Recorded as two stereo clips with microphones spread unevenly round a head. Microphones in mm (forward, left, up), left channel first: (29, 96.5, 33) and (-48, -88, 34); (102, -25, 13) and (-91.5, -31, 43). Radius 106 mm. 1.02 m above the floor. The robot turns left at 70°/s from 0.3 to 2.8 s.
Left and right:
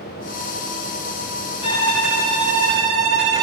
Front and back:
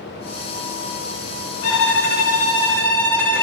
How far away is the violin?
About 3.5 m.